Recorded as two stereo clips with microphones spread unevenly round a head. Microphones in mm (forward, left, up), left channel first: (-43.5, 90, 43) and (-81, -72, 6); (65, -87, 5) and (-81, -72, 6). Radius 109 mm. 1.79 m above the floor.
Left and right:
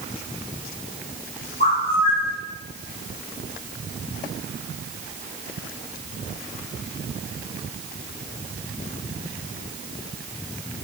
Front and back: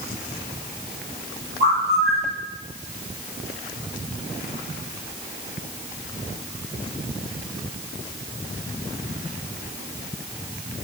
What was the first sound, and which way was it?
A bird, 130° left.